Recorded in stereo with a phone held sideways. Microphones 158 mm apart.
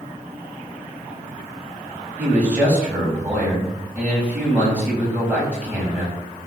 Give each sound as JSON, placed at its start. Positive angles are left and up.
{"t": 2.2, "sound": "a man speaking", "side_deg": -10, "distance_m": 4.5}